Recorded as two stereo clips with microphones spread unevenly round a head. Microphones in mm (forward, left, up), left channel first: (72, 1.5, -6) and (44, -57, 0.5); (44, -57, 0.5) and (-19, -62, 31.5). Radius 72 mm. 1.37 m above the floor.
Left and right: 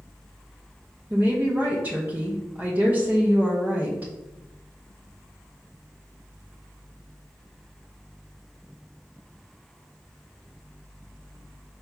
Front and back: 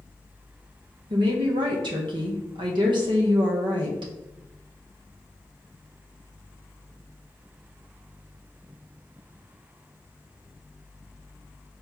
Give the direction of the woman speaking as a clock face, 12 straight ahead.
6 o'clock.